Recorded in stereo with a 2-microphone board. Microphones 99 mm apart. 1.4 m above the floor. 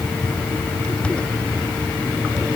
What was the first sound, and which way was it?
Only background noise.